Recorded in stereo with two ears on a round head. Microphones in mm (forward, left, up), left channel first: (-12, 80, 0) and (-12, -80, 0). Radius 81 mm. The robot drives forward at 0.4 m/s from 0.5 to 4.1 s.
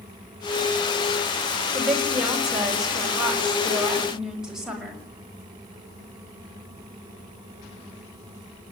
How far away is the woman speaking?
About 5 m.